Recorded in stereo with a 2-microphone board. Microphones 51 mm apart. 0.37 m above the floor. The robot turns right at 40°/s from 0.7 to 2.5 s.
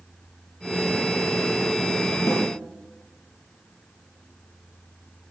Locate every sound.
2.3 s a snare drum: 60° left (ahead or behind), 1.9 m; by 2.5 s 50° left (ahead or behind), 1.9 m